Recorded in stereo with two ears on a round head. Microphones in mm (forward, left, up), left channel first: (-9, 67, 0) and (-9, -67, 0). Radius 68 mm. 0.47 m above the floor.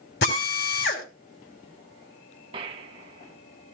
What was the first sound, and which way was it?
A drill, 75° left (ahead or behind).